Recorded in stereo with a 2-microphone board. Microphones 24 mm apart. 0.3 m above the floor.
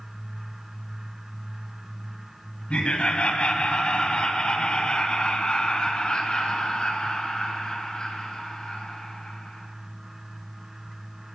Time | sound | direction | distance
2.7 | laughter | 45° left (ahead or behind) | 1.6 m